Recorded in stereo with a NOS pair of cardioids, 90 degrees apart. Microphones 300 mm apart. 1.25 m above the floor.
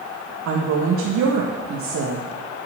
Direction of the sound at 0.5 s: 70° right.